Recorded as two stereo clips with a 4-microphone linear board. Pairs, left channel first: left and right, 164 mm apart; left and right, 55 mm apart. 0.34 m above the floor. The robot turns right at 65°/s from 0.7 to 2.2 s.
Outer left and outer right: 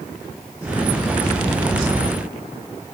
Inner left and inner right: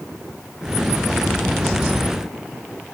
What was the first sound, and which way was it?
Only background noise.